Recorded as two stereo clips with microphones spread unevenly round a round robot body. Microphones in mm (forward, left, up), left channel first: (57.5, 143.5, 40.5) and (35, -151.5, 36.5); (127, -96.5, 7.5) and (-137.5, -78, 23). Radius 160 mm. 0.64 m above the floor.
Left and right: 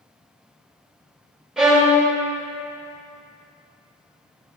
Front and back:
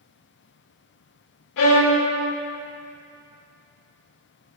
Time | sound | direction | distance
1.6 | a violin | 5° right | 1.9 m